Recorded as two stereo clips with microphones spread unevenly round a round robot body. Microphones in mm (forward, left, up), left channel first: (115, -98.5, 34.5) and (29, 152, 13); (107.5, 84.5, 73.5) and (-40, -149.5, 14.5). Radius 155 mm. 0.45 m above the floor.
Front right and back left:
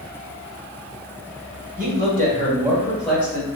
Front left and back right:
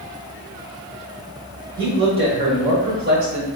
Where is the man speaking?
170° left, 1.7 m; by 3.5 s 150° right, 1.3 m.